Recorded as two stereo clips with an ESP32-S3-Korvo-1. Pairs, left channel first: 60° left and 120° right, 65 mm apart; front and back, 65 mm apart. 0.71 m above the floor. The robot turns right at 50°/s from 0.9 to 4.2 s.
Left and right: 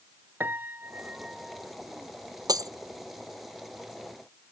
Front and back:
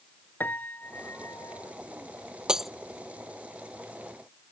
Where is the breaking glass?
105° right; by 2.7 s 90° right.